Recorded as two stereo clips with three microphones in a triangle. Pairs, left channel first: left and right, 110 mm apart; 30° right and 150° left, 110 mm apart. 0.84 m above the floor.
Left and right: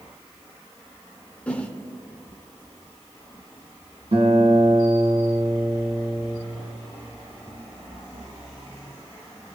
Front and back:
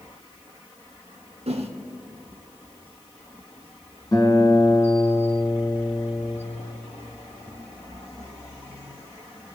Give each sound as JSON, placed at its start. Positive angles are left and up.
{"t": 1.5, "sound": "a whoosh", "azimuth_deg": 170, "distance_m": 0.9}
{"t": 4.1, "sound": "a guitar", "azimuth_deg": -85, "distance_m": 3.0}